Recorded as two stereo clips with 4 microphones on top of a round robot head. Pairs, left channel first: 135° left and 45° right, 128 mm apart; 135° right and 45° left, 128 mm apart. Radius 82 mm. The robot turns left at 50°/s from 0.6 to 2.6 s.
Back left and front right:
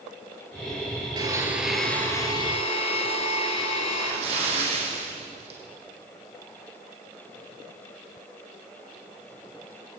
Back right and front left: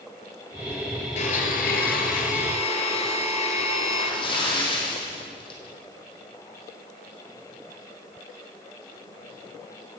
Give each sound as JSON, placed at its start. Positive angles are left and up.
{"t": 1.2, "sound": "a blender", "azimuth_deg": -105, "distance_m": 3.0}
{"t": 3.9, "sound": "a splash", "azimuth_deg": -85, "distance_m": 6.0}